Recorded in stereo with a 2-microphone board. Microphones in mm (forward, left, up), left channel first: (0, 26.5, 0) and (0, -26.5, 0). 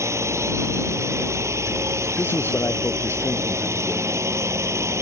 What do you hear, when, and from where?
0.0 s a drone: 65° right (ahead or behind)
2.2 s a man speaking: 45° left (ahead or behind)